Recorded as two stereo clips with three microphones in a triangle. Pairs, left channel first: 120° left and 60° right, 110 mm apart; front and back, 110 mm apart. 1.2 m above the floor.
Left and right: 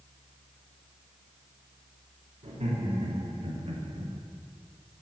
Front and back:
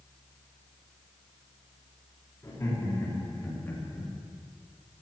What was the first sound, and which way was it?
Laughter, 60° right.